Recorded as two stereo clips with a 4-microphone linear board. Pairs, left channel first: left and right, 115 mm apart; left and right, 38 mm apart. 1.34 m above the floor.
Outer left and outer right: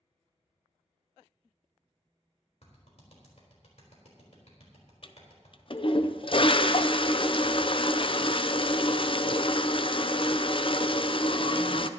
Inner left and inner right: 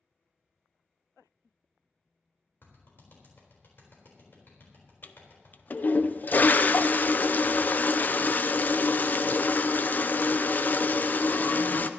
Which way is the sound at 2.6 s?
70° left (ahead or behind).